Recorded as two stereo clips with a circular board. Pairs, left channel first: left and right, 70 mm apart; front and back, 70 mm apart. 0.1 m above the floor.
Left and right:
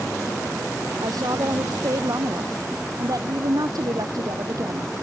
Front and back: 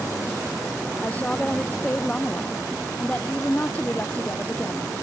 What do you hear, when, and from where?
1.0 s a woman speaking: 70° right